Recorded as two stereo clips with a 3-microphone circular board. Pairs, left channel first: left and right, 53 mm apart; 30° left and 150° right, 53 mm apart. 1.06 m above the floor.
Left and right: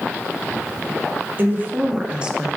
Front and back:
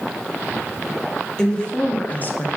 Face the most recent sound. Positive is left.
turn(degrees=-10)